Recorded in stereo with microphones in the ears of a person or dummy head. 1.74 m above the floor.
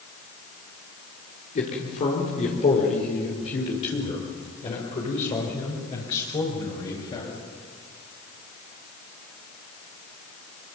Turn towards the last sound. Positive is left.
turn(degrees=30)  # may be behind; listen again after turning